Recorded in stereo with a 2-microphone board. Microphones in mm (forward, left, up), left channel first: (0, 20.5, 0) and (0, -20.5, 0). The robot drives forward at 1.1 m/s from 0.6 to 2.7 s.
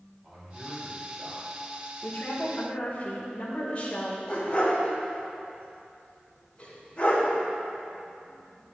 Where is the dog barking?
30° left (ahead or behind), 2.5 m.